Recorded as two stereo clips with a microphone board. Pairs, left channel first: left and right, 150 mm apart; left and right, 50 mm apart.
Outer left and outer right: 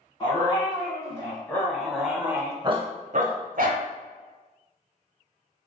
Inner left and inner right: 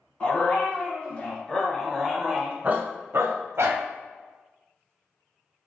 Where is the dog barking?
25° left (ahead or behind), 1.8 m; by 3.8 s 75° right (ahead or behind), 0.9 m.